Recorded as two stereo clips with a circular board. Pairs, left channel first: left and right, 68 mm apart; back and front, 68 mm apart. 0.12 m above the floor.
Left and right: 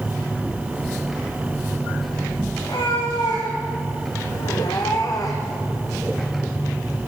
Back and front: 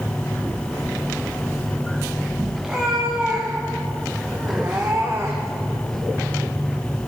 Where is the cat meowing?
80° left, 4 m; by 5.6 s 45° left, 1.9 m.